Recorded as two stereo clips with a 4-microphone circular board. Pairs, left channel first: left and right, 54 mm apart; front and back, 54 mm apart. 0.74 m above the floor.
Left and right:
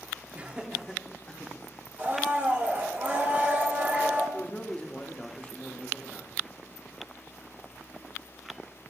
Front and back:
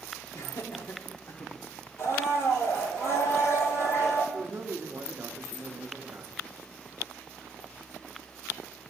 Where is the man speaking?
155° left, 0.9 m.